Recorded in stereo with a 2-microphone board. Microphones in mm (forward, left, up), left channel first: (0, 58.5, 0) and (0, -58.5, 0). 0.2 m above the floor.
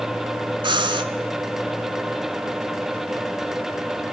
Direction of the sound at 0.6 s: 40° right (ahead or behind).